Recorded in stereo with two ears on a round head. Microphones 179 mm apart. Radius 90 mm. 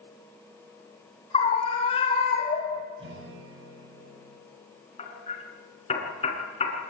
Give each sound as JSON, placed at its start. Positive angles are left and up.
{"t": 1.3, "sound": "a scream", "side_deg": 30, "distance_m": 4.0}
{"t": 3.0, "sound": "a guitar", "side_deg": -65, "distance_m": 7.5}
{"t": 5.0, "sound": "hammering", "side_deg": 30, "distance_m": 5.5}